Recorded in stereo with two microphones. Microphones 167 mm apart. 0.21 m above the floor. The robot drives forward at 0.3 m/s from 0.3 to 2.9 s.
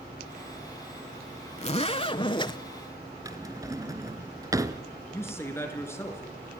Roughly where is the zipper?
Left.